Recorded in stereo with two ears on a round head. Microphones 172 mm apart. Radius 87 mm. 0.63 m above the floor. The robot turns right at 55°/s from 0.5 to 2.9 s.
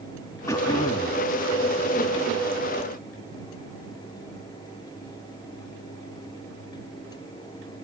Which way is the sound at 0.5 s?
35° left.